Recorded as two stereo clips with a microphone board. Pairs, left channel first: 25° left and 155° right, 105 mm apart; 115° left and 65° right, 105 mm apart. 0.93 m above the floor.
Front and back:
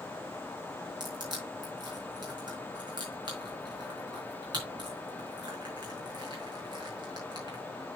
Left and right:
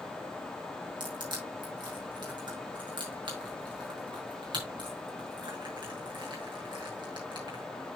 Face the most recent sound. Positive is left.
turn(degrees=-110)